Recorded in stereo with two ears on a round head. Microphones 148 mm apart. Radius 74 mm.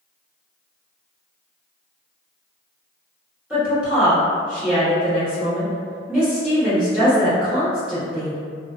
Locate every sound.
3.5 s a woman speaking: 5° right (ahead or behind), 1.3 m